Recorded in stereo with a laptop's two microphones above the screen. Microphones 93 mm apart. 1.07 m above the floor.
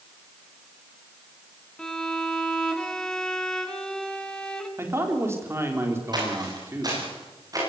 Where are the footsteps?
50° right (ahead or behind), 8.5 m; by 7.6 s 40° right (ahead or behind), 10 m.